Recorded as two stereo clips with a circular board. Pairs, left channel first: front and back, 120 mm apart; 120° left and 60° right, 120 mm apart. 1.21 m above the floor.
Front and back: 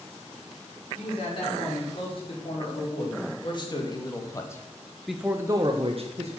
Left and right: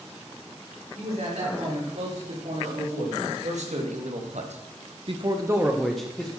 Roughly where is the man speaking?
Ahead right.